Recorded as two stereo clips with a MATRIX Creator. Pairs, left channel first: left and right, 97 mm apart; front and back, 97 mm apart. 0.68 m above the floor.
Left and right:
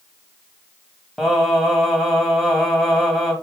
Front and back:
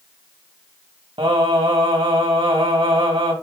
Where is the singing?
Straight behind, 2.5 m.